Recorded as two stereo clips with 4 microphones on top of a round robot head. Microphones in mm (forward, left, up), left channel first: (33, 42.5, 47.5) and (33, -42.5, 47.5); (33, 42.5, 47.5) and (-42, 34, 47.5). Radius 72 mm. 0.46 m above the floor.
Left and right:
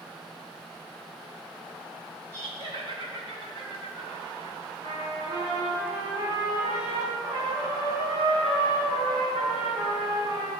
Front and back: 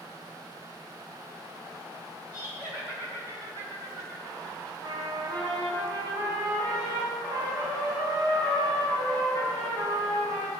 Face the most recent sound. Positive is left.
turn(degrees=-125)